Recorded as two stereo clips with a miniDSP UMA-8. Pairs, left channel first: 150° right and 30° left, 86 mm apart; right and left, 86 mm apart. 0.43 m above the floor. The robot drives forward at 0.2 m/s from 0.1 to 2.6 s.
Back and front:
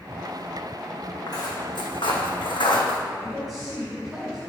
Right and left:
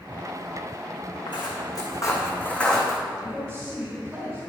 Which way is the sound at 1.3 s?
110° right.